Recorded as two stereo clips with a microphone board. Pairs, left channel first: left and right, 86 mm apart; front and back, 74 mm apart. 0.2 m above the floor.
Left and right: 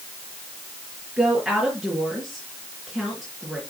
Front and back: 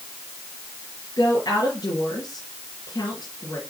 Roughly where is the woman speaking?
Ahead.